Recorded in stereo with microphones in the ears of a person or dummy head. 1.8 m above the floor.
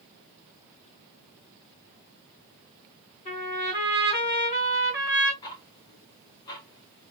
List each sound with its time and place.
3.2 s a trumpet: 45° left (ahead or behind), 3 m
5.4 s ticking: 20° left (ahead or behind), 0.7 m